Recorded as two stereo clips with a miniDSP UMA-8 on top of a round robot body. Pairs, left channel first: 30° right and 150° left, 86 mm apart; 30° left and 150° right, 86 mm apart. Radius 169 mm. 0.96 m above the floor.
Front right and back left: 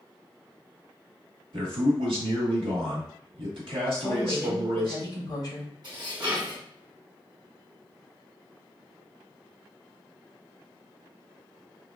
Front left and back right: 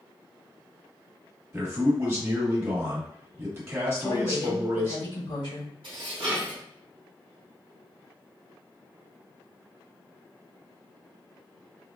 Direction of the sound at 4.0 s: 15° left.